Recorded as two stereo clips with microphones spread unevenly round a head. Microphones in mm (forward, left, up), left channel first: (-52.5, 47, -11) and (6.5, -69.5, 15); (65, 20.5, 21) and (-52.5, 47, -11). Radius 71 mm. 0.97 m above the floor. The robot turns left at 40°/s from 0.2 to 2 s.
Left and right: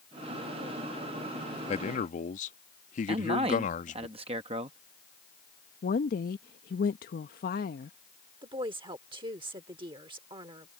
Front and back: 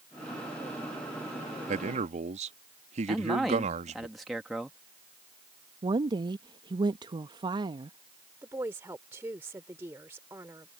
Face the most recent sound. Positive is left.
turn(degrees=-115)